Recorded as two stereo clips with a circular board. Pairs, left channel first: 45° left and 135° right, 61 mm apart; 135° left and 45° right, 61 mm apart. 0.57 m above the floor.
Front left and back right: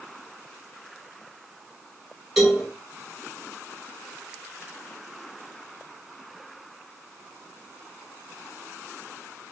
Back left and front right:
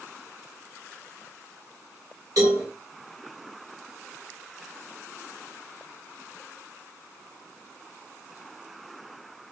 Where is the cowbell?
50° right, 1.7 m.